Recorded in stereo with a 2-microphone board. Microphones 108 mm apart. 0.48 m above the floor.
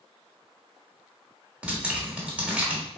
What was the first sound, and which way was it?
Dripping, 10° right (ahead or behind).